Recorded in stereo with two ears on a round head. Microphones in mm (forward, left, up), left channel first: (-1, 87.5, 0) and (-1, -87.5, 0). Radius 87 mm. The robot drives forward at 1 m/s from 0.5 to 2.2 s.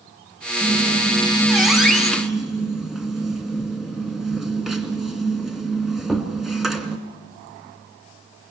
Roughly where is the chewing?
I don't hear chewing.